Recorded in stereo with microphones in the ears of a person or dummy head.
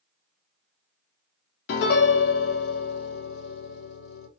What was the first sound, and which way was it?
A piano, 60° left (ahead or behind).